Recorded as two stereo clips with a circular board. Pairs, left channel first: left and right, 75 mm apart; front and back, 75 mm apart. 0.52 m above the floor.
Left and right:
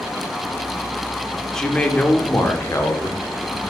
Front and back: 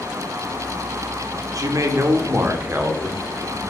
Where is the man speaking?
175° left, 1.1 m; by 3.6 s 110° left, 1.5 m.